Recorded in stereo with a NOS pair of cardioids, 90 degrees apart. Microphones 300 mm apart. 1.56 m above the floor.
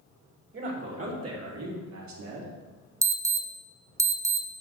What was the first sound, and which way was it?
A man speaking, 40° right.